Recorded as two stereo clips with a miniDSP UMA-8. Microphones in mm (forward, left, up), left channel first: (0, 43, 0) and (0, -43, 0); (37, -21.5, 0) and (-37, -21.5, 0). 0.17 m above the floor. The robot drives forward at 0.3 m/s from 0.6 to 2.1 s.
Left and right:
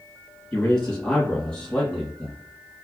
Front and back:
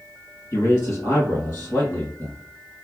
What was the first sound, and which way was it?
A man speaking, 25° left.